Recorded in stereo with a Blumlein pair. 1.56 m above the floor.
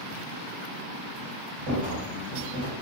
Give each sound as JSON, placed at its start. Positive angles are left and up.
{"t": 1.7, "sound": "a rattle", "azimuth_deg": -65, "distance_m": 2.0}